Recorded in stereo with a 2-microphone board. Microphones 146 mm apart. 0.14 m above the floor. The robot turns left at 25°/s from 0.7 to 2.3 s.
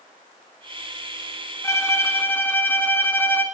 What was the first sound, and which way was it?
A violin, 20° left (ahead or behind).